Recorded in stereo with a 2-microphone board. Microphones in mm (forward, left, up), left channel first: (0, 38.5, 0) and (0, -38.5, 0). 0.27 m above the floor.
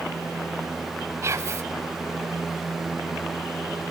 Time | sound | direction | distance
1.2 | whispering | 35° right (ahead or behind) | 1.5 m